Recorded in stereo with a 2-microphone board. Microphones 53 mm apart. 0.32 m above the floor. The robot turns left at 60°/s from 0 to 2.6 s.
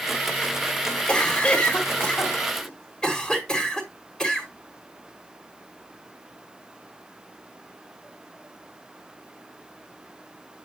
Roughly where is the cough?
Centre.